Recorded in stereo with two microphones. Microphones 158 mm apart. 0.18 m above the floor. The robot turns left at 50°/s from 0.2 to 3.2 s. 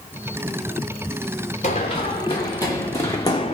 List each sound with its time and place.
1.6 s running footsteps: 50° left (ahead or behind), 1.3 m; by 3.5 s 40° left (ahead or behind), 0.6 m